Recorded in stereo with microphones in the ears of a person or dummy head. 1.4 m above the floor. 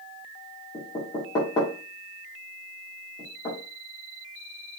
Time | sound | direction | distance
0.7 | knocking | 20° left (ahead or behind) | 2.0 m